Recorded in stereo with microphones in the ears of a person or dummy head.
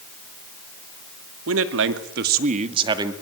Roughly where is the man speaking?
Right.